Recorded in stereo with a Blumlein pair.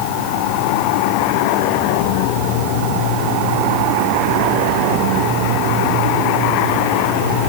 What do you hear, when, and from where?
Only background noise.